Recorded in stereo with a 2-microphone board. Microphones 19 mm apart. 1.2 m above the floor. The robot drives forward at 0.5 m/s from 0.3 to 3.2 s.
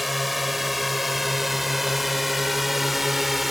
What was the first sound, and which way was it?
A drone, 5° right (ahead or behind).